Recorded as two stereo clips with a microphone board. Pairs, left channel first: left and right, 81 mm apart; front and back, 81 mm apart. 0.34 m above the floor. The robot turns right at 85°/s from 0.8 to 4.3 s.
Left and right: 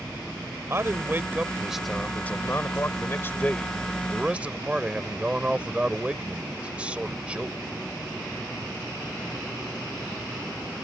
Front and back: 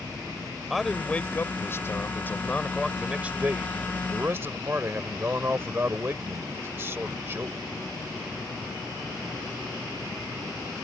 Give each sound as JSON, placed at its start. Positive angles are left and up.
{"t": 0.7, "sound": "a man speaking", "azimuth_deg": -90}